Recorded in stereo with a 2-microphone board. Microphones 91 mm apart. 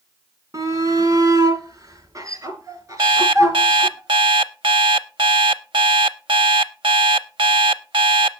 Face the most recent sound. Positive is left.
turn(degrees=-65)  # may be behind; listen again after turning